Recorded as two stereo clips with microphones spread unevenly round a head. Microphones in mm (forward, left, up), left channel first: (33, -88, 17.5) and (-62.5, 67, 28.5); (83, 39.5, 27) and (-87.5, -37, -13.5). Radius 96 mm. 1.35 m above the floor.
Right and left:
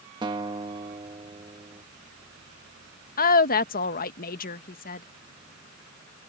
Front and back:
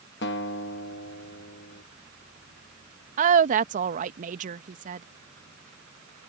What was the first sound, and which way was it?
A guitar, 55° left.